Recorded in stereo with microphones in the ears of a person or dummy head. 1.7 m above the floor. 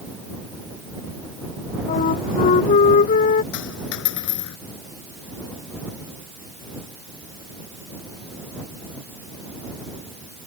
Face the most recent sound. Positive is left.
turn(degrees=60)  # may be behind; listen again after turning